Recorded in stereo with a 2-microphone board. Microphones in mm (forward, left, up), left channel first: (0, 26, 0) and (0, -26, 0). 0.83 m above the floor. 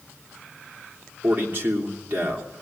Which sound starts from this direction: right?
A man speaking, at 1.2 s.